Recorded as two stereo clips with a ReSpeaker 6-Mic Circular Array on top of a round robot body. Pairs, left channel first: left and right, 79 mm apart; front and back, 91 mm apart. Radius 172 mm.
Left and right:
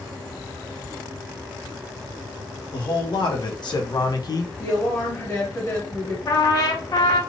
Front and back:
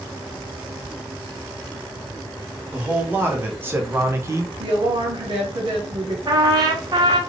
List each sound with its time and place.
2.7 s a man speaking: 110° left, 1.8 m; by 4.5 s 125° left, 0.7 m
4.6 s a woman speaking: 150° left, 1.3 m
6.3 s a trumpet: 135° left, 0.8 m